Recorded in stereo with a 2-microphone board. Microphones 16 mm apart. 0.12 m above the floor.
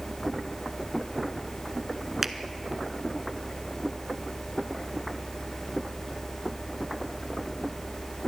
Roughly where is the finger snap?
Centre.